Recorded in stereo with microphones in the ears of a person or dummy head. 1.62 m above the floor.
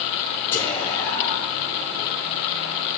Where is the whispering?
15° left (ahead or behind), 0.9 m.